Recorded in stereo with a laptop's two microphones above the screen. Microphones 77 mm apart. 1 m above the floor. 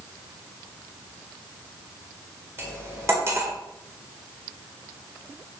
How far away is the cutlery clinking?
About 2.5 m.